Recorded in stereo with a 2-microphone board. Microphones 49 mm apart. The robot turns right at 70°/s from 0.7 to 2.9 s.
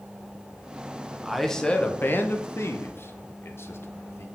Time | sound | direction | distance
1.2 | a man speaking | 10° right (ahead or behind) | 0.8 m